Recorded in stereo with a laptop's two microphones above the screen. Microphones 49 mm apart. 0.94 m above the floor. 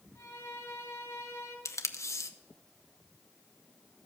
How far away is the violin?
About 3.5 m.